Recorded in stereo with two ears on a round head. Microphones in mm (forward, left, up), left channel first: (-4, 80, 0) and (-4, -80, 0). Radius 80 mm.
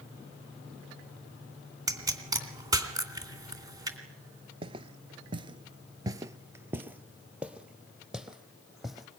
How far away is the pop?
About 3 m.